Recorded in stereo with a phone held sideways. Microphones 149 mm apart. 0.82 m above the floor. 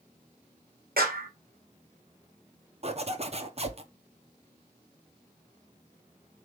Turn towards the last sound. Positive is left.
turn(degrees=-45)  # may be behind; listen again after turning